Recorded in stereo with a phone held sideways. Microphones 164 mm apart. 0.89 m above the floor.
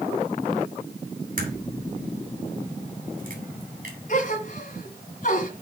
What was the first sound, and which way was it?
A crack, 55° right (ahead or behind).